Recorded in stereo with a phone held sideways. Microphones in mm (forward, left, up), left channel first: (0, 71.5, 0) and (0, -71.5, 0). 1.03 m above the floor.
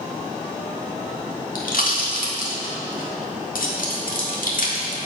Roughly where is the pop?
Left.